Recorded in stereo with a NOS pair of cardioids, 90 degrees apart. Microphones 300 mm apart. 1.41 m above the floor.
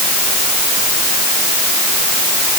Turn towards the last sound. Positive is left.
No sound to turn to.